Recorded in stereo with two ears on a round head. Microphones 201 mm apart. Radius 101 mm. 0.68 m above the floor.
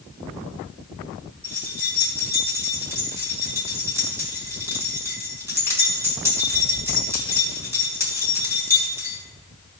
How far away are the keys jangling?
About 3.5 m.